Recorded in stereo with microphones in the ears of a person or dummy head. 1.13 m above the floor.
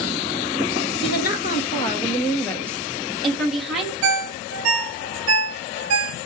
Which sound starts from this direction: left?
A woman speaking, at 1.0 s.